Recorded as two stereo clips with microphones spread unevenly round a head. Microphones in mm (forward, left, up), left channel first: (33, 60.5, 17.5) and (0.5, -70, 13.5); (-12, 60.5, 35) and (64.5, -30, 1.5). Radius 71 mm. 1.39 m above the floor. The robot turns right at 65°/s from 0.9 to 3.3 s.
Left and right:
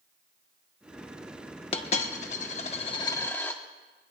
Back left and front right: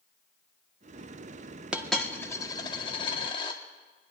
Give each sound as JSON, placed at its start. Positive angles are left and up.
{"t": 1.7, "sound": "a dropped coin", "azimuth_deg": 45, "distance_m": 1.2}